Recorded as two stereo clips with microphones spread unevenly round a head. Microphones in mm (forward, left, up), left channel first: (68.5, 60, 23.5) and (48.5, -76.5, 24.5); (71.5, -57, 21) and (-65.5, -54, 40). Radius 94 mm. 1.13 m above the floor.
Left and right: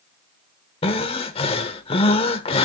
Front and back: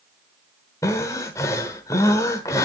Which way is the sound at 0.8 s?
75° left.